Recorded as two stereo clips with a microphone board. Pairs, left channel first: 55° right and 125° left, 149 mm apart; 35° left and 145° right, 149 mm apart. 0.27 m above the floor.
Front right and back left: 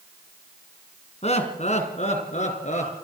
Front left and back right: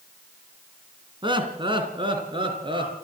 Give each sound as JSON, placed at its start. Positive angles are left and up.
{"t": 1.2, "sound": "laughter", "azimuth_deg": -95, "distance_m": 3.0}